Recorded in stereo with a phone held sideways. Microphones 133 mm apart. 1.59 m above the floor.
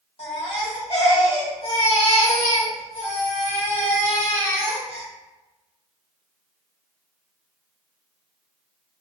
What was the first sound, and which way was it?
A baby crying, 50° left (ahead or behind).